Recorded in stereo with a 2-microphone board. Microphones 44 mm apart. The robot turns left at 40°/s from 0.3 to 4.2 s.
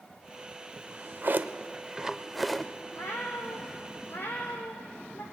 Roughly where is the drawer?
Right.